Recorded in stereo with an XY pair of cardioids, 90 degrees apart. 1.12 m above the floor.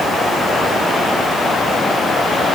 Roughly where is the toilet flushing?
I don't hear a toilet flushing.